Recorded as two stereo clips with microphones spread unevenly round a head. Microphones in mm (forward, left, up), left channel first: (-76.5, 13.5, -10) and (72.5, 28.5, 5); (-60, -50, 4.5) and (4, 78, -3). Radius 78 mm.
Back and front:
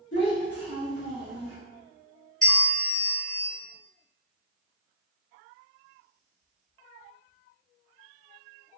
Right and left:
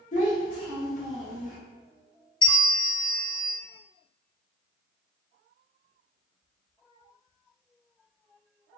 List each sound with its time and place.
0.1 s a child speaking: 155° right, 1.2 m
2.4 s a bell: 100° right, 0.6 m